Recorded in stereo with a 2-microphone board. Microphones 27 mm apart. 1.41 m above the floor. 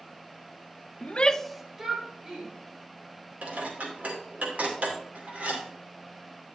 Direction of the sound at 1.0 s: 55° left (ahead or behind).